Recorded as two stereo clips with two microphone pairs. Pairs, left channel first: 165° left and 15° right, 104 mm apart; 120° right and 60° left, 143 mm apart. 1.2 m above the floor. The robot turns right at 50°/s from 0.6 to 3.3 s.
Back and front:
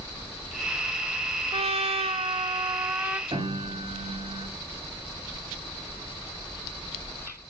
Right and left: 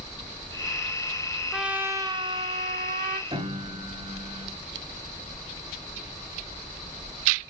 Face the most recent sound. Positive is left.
turn(degrees=15)